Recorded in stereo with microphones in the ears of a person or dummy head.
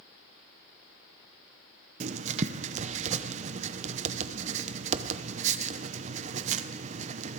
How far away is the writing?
About 0.7 m.